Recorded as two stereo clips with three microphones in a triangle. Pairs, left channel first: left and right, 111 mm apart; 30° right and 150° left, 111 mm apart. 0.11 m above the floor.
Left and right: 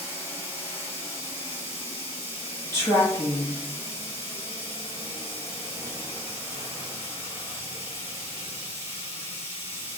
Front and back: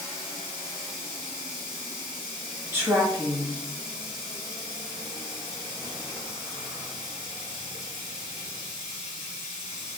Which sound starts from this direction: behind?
Running water, at 0.0 s.